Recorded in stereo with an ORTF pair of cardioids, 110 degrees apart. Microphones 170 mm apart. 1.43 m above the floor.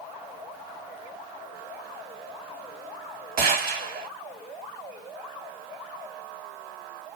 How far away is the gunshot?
About 1.5 m.